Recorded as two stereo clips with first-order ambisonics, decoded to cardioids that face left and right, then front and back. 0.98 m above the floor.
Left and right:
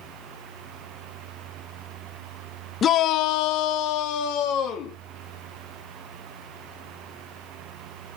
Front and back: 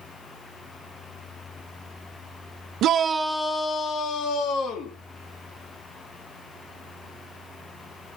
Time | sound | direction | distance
2.8 | a shout | 145° left | 0.5 m